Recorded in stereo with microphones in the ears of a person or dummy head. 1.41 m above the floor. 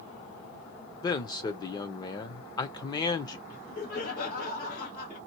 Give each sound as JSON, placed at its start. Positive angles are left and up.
{"t": 1.0, "sound": "a man speaking", "side_deg": 15, "distance_m": 0.7}
{"t": 3.5, "sound": "laughter", "side_deg": 60, "distance_m": 1.9}